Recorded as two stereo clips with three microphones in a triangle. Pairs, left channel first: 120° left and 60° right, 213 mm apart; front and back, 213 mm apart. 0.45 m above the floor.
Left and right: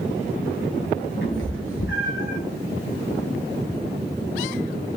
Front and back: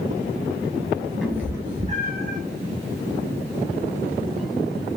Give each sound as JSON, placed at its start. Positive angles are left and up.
{"t": 1.2, "sound": "a cat meowing", "azimuth_deg": 85, "distance_m": 1.7}